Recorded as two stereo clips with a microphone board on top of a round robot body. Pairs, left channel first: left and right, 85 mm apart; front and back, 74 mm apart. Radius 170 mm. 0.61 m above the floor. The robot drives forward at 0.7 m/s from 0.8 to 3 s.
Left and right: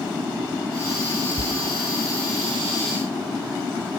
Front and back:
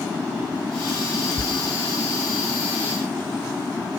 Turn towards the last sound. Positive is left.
turn(degrees=-105)